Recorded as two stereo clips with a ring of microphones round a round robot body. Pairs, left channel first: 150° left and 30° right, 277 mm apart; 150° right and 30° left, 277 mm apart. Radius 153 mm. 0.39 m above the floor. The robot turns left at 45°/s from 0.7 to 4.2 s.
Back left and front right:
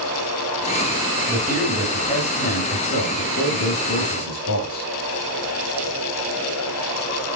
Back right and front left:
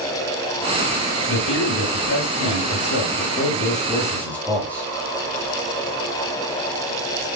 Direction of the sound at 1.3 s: 100° right.